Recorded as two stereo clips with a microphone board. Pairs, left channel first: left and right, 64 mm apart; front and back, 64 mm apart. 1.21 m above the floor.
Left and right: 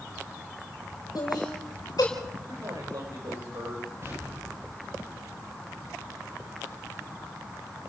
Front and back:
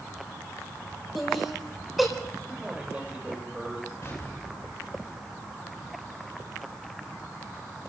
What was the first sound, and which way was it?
Laughter, 90° left.